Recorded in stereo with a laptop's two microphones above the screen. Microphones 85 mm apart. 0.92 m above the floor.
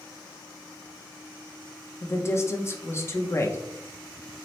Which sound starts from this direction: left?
A woman speaking, at 2.0 s.